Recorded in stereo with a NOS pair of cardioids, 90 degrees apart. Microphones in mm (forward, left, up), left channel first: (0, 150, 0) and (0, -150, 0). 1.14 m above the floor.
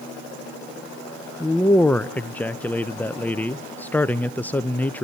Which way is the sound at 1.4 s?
5° left.